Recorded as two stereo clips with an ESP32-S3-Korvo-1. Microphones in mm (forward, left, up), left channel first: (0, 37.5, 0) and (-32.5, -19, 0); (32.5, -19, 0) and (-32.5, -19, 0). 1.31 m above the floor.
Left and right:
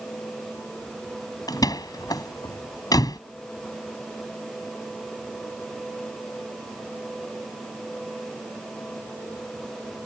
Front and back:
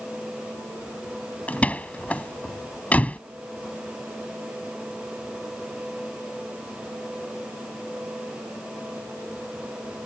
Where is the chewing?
No chewing in this recording.